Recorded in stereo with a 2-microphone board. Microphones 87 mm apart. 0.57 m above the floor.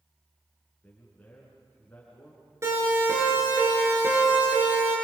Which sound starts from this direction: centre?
A man speaking, at 0.8 s.